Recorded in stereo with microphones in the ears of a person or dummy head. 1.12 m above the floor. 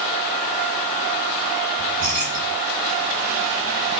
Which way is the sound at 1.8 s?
50° right (ahead or behind).